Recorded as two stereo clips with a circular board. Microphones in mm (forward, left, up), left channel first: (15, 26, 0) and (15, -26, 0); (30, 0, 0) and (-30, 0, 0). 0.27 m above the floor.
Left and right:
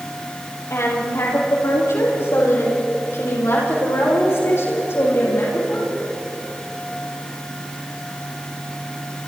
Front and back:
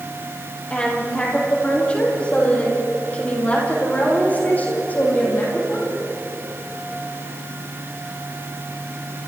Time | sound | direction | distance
0.7 | a woman speaking | 70° left | 8 m